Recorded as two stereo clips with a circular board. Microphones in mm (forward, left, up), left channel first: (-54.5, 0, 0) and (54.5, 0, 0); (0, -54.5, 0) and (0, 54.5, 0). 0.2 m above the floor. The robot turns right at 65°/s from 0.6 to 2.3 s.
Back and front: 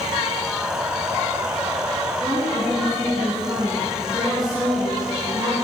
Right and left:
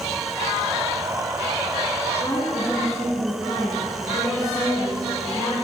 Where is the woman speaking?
50° right, 2 m; by 5.5 s 45° right, 2 m.